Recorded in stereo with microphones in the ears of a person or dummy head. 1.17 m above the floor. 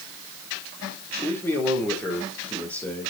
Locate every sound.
1.2 s a man speaking: 10° left (ahead or behind), 3.5 m